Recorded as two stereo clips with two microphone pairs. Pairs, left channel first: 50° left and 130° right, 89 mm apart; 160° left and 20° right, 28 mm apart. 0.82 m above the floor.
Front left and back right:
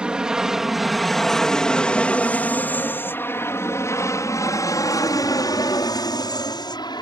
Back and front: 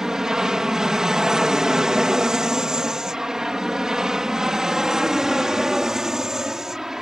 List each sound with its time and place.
0.0 s an aircraft: 60° right; by 7.0 s 50° left